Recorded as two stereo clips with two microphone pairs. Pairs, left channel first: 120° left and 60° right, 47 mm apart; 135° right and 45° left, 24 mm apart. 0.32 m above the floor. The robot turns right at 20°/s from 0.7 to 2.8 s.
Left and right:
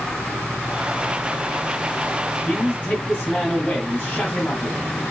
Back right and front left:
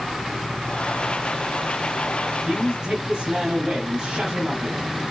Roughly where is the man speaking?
Ahead left.